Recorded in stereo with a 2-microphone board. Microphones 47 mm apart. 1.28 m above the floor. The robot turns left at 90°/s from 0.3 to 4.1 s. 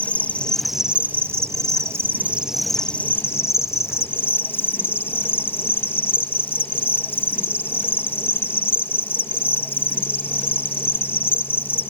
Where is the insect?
35° left; by 11.9 s 50° left.